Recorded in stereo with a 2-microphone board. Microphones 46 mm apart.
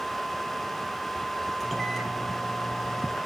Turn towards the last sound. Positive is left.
turn(degrees=0)  # may be behind; listen again after turning